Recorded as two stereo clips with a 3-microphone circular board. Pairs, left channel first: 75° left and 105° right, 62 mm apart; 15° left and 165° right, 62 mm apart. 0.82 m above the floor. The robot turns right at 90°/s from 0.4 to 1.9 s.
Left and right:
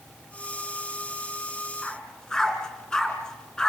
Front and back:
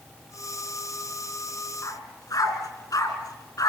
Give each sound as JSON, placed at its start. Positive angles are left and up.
{"t": 1.8, "sound": "a dog barking", "azimuth_deg": -10, "distance_m": 3.5}